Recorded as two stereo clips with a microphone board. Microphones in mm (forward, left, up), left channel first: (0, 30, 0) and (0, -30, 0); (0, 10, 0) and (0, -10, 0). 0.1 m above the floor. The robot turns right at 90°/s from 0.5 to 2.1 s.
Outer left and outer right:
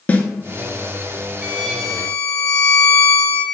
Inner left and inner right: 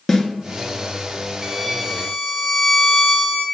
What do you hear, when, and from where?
0.1 s a snare drum: 25° left (ahead or behind), 0.7 m
1.4 s a violin: 25° right, 0.6 m; by 3.5 s 35° left, 0.6 m